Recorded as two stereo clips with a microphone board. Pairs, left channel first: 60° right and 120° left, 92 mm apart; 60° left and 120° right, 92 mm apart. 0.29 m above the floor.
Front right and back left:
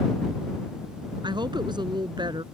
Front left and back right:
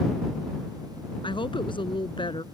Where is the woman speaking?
85° left.